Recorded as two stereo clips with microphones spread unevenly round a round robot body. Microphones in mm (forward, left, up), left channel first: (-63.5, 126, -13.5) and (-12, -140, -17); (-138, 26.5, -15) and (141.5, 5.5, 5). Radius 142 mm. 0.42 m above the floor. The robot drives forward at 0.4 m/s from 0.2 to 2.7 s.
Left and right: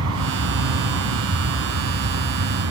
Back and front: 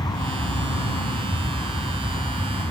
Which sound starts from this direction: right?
An aircraft, at 0.0 s.